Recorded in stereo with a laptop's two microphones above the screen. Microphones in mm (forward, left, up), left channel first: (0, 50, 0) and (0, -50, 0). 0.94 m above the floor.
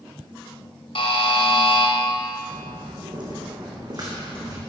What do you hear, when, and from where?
0.9 s a buzzer: 70° left (ahead or behind), 1.6 m
2.5 s footsteps: 55° right (ahead or behind), 3 m; by 4.6 s 35° right (ahead or behind), 4 m